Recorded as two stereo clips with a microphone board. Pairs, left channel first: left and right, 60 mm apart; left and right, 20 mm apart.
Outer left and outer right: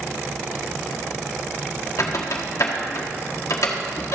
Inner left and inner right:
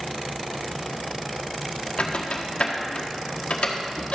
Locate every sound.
2.0 s a squeak: 60° left (ahead or behind), 1.5 m